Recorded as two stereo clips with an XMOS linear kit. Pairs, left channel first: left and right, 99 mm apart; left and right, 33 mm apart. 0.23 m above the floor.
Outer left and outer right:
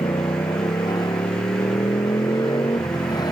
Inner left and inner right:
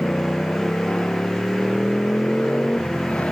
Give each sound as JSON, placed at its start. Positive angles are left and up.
{"t": 0.0, "sound": "a motorcycle", "side_deg": 45}